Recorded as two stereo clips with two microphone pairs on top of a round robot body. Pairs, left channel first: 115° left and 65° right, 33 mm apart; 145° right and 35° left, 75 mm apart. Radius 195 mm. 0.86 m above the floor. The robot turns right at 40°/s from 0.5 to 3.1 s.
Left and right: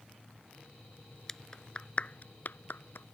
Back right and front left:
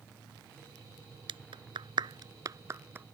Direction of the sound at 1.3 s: 35° left.